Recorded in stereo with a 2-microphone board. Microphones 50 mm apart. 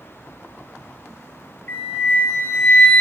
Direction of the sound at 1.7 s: 40° left (ahead or behind).